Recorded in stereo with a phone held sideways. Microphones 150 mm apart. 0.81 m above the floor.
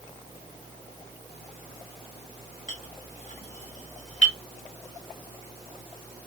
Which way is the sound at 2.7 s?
50° left (ahead or behind).